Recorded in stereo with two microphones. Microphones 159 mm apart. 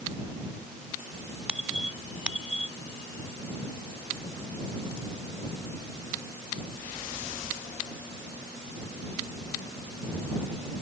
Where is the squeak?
5° right (ahead or behind).